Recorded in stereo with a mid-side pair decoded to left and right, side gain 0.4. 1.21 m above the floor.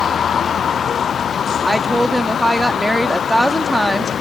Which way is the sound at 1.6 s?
5° right.